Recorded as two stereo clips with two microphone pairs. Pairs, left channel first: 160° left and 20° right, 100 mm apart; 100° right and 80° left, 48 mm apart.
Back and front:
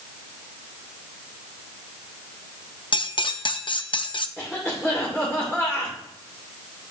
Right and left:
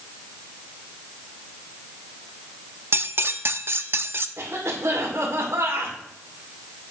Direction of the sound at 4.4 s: 80° left.